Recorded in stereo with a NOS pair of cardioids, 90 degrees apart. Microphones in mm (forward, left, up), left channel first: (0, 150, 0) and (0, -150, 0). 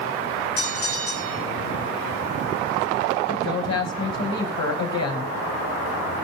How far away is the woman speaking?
About 5.5 m.